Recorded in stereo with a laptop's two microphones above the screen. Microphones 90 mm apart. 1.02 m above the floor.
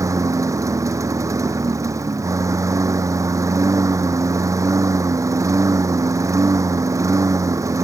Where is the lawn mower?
35° right (ahead or behind).